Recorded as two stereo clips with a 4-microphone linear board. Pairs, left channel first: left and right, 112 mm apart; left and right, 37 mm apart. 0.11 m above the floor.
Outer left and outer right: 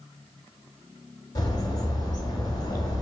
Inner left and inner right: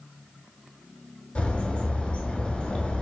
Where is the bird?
35° left (ahead or behind), 0.5 m.